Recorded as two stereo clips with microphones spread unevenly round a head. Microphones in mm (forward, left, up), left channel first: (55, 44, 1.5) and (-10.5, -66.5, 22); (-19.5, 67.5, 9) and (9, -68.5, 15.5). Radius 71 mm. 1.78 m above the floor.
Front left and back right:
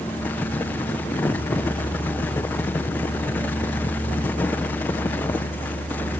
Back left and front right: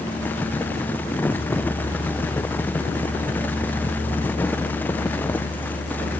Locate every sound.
Only background noise.